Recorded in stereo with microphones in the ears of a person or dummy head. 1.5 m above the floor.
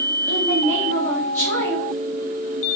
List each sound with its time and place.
0.3 s a woman speaking: 15° left (ahead or behind), 1.4 m